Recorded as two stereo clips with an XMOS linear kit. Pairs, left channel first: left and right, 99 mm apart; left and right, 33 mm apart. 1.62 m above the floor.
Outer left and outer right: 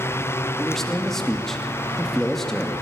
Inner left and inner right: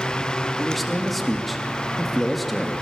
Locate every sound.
0.6 s a man speaking: 5° left (ahead or behind), 3 m